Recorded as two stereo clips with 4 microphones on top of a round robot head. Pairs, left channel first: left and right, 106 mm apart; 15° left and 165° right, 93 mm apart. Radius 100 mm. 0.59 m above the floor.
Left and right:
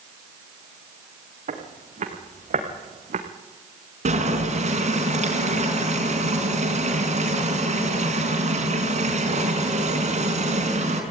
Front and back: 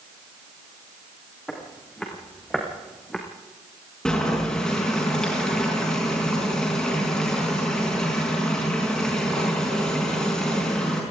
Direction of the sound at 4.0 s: 70° right.